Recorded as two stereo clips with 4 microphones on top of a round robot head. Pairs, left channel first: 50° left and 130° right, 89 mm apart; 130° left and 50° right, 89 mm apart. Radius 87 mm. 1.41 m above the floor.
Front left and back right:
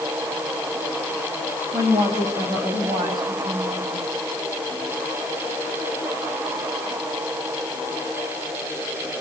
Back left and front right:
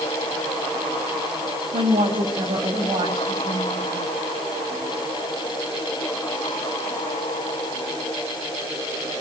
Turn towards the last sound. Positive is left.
turn(degrees=-100)